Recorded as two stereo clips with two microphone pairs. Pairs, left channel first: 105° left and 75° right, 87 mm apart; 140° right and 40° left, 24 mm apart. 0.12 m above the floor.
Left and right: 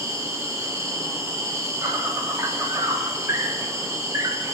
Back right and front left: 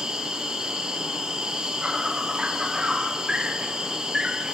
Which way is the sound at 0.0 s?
20° right.